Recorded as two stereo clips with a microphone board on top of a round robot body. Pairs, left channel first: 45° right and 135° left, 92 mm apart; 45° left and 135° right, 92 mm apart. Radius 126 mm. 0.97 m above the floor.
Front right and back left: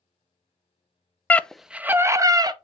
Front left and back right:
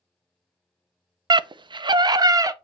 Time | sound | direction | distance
1.3 | a scream | 115° right | 0.5 m